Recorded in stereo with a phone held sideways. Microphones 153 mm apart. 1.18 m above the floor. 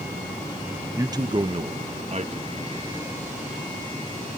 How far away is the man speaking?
About 1.0 m.